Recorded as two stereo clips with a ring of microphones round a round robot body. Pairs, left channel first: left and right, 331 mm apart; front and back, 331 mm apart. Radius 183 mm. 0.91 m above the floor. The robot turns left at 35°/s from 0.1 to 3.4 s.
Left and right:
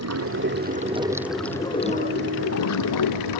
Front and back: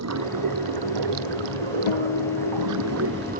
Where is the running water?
135° right; by 3.4 s 110° left.